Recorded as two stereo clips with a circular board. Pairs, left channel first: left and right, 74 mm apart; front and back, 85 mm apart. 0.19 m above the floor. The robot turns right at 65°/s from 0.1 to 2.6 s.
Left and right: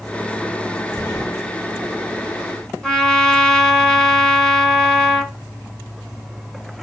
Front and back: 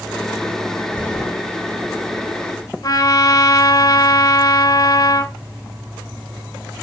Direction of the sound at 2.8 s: 10° left.